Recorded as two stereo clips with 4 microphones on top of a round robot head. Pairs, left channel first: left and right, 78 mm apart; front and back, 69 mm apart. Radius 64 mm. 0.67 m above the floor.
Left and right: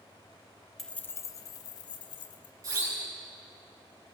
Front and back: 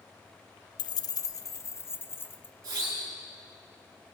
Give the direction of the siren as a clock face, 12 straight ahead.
4 o'clock.